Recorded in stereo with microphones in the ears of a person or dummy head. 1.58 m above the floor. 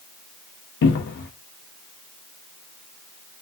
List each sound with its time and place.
0.8 s a cupboard door: 65° left (ahead or behind), 0.9 m